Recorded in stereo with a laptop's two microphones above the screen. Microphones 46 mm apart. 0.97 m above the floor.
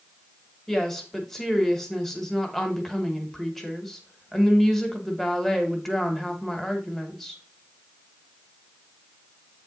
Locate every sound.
0.7 s a woman speaking: 5° left (ahead or behind), 1.3 m